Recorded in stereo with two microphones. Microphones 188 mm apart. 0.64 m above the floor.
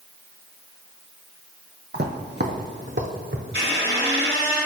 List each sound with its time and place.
1.9 s footsteps: 55° right (ahead or behind), 1.1 m; by 3.4 s 65° right (ahead or behind), 2.0 m
3.5 s a squeak: 75° right (ahead or behind), 2.5 m